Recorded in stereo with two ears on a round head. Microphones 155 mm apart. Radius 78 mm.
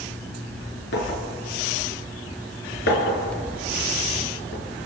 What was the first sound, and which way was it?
A clink, 70° left (ahead or behind).